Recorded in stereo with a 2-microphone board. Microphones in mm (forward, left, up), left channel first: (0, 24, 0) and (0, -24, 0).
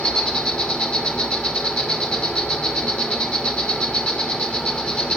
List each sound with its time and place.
0.0 s an insect: 20° left (ahead or behind), 3 m